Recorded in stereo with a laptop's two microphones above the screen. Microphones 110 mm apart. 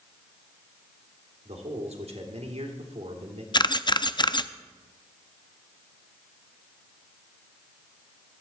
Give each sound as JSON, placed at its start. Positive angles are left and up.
{"t": 1.4, "sound": "a man speaking", "side_deg": -70, "distance_m": 3.0}
{"t": 3.5, "sound": "a camera shutter", "side_deg": 45, "distance_m": 0.5}